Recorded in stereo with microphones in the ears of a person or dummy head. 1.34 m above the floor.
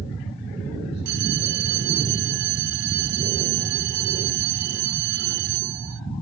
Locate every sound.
1.1 s a bell: 65° right (ahead or behind)